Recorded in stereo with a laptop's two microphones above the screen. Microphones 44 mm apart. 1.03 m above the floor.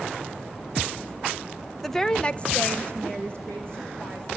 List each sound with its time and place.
1.8 s a woman speaking: 5° left (ahead or behind), 0.9 m; by 4.3 s 25° left (ahead or behind), 3 m